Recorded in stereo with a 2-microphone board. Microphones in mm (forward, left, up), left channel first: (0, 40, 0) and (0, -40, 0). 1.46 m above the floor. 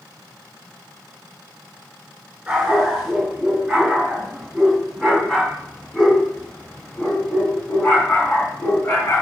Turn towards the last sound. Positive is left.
turn(degrees=30)  # may be behind; listen again after turning